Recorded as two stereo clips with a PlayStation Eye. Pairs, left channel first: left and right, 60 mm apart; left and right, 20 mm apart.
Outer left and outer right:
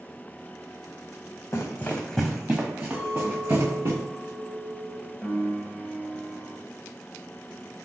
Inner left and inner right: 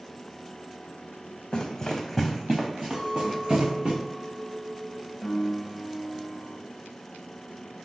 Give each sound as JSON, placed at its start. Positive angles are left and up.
{"t": 1.5, "sound": "running footsteps", "side_deg": 50, "distance_m": 0.8}
{"t": 2.9, "sound": "a clink", "side_deg": -25, "distance_m": 1.2}
{"t": 5.2, "sound": "a piano", "side_deg": -5, "distance_m": 1.1}